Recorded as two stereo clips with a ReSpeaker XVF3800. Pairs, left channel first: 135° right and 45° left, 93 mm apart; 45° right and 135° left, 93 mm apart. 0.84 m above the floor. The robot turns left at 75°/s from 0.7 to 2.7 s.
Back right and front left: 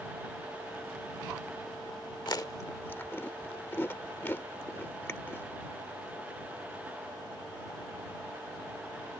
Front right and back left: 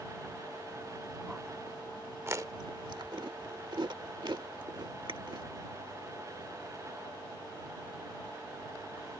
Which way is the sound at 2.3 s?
165° right.